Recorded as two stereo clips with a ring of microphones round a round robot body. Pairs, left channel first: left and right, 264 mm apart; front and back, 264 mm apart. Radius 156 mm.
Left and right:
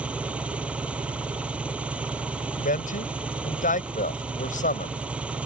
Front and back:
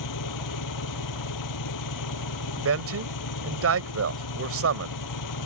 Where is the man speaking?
150° left.